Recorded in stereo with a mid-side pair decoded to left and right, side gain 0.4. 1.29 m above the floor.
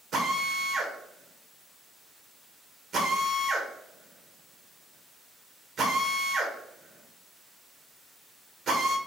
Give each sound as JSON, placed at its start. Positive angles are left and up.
{"t": 0.1, "sound": "a drill", "azimuth_deg": -65, "distance_m": 1.6}